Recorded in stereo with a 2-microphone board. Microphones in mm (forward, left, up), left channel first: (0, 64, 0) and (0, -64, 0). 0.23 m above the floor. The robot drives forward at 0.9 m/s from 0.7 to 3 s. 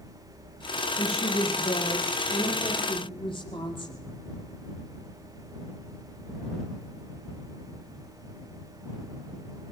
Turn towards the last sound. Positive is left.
turn(degrees=45)  # may be behind; listen again after turning